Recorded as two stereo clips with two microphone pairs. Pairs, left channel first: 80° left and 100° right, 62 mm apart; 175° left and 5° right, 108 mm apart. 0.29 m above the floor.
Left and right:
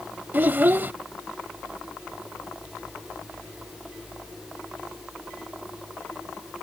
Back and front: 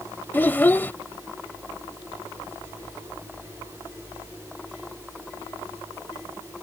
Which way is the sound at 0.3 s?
125° right.